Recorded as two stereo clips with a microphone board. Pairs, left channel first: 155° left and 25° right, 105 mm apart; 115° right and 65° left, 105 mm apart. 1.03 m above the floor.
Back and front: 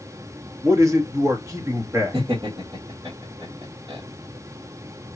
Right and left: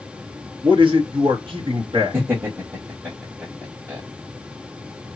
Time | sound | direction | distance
0.6 | a man speaking | 35° left | 1.2 m
2.1 | laughter | 5° left | 1.9 m